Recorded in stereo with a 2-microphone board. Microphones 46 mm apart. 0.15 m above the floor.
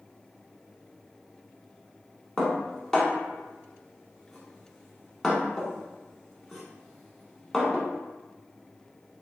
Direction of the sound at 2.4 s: 5° left (ahead or behind).